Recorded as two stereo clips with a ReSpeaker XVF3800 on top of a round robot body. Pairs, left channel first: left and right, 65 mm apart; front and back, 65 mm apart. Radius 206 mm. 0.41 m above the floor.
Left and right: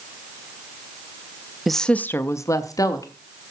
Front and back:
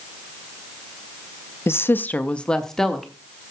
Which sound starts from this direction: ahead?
A woman speaking, at 1.7 s.